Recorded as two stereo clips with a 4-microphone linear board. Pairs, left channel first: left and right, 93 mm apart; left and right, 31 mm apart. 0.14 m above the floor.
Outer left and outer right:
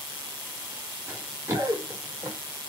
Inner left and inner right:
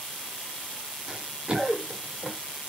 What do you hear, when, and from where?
1.1 s running footsteps: 25° right (ahead or behind), 1.9 m; by 2.4 s 30° right (ahead or behind), 2.5 m